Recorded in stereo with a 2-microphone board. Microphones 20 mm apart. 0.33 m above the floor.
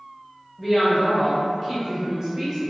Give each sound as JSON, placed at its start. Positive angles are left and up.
{"t": 0.6, "sound": "a woman speaking", "side_deg": -10, "distance_m": 1.4}